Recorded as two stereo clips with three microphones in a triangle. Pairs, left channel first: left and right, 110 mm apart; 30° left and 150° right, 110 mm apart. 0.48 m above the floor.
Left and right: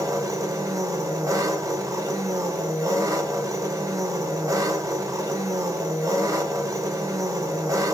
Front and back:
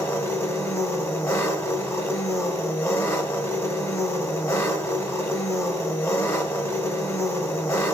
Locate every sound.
0.0 s an engine running: 30° right, 0.8 m